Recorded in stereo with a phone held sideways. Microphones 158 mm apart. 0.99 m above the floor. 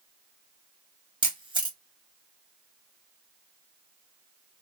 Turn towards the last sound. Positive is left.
turn(degrees=-30)  # may be behind; listen again after turning